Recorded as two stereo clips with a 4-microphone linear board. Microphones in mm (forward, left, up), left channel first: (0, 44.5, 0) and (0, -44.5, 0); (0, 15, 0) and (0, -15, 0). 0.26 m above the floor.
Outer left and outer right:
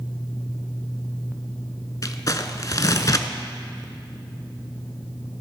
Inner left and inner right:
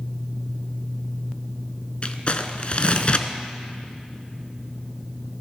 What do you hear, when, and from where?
2.0 s crumpling: 45° left (ahead or behind), 0.6 m